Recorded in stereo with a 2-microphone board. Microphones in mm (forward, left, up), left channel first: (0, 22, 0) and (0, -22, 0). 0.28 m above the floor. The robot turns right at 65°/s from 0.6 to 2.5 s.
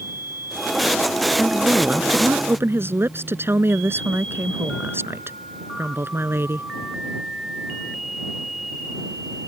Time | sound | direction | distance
1.4 | a woman speaking | straight behind | ?